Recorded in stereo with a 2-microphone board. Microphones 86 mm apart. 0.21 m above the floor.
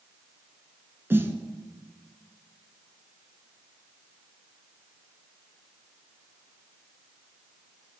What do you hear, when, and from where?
1.1 s a snare drum: 25° right (ahead or behind), 0.6 m